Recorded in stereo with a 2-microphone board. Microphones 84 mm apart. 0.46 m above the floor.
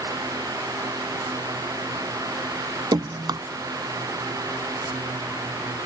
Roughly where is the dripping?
Right.